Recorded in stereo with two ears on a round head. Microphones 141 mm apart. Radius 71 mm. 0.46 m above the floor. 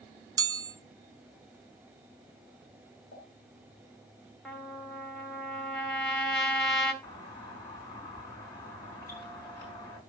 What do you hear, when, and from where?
0.4 s a chime: 25° right (ahead or behind), 0.5 m
3.1 s a pop: 65° left (ahead or behind), 2 m
4.5 s a trumpet: 5° left (ahead or behind), 1.2 m
7.0 s a doorbell: 15° left (ahead or behind), 4.5 m